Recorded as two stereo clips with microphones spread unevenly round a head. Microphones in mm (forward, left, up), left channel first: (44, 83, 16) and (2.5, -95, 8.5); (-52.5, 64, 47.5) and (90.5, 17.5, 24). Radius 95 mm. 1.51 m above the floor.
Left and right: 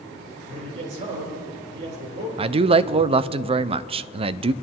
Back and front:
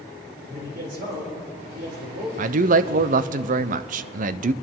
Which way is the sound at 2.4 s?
45° right.